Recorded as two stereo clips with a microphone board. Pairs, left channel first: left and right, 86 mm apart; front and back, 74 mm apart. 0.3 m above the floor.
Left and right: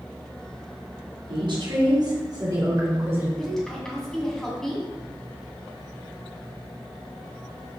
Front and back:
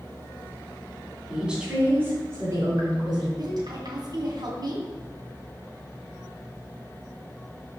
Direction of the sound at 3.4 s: 175° left.